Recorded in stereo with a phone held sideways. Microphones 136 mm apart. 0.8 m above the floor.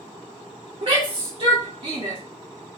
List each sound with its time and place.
0.8 s a shout: 50° right (ahead or behind), 0.9 m